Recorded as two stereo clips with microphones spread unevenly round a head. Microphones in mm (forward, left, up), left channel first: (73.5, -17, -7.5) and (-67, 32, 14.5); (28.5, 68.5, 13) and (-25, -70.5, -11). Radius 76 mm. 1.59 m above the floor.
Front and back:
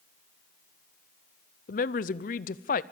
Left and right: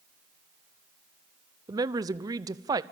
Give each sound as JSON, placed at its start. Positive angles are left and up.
{"t": 1.7, "sound": "a woman speaking", "azimuth_deg": -50, "distance_m": 0.7}